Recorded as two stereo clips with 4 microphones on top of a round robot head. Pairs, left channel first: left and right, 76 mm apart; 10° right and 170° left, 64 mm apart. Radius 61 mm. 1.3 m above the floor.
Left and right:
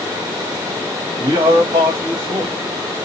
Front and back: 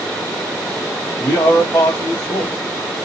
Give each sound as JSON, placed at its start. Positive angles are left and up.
{"t": 1.2, "sound": "a man speaking", "azimuth_deg": -60, "distance_m": 0.8}